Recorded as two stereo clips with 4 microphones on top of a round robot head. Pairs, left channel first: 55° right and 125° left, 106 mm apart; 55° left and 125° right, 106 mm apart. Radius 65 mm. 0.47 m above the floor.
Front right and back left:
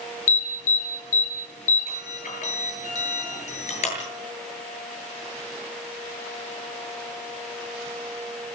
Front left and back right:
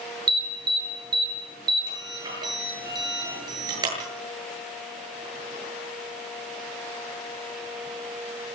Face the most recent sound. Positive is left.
turn(degrees=-70)